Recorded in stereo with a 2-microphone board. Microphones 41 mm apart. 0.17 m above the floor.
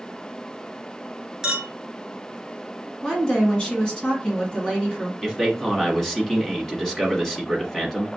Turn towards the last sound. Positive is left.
turn(degrees=10)  # may be behind; listen again after turning